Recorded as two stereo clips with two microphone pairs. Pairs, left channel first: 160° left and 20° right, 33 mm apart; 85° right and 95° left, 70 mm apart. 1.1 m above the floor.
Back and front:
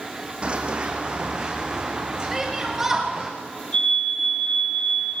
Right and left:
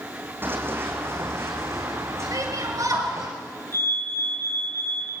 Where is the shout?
60° left, 7.5 m.